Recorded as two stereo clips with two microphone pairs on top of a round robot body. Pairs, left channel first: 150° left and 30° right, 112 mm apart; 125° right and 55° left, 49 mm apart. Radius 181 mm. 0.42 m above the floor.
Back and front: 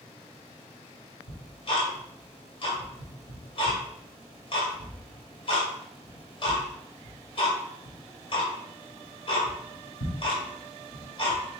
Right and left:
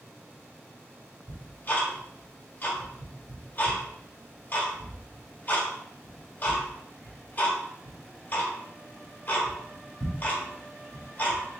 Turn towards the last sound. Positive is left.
turn(degrees=-175)